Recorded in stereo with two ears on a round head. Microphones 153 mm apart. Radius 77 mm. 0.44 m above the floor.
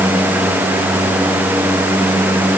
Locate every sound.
Only background noise.